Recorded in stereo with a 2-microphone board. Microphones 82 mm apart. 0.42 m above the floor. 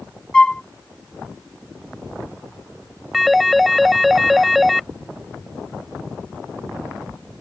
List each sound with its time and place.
0.3 s a flute: 10° left (ahead or behind)
3.1 s a phone ringing: centre (ahead or behind)